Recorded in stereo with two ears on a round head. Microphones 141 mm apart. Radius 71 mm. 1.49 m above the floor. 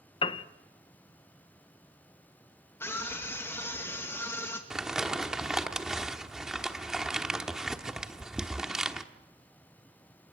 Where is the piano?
30° left (ahead or behind), 0.7 m.